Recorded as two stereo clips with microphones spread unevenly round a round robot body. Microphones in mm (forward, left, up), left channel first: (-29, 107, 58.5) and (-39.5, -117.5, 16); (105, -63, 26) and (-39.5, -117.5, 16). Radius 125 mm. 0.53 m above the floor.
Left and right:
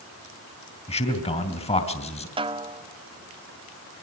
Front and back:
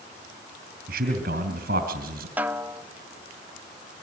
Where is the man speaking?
155° left, 3 m.